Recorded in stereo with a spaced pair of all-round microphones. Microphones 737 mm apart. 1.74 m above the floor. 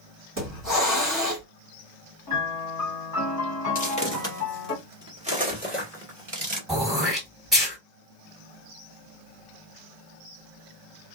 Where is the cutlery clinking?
No cutlery clinking in this recording.